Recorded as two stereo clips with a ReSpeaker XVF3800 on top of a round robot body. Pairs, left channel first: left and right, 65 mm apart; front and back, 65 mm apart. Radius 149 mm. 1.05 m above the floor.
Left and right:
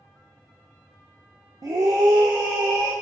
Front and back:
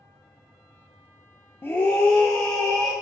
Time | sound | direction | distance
1.6 | a scream | 55° right | 0.6 m